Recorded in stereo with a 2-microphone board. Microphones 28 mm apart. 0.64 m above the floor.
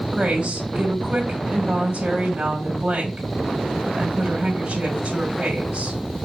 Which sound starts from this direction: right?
A woman speaking, at 0.1 s.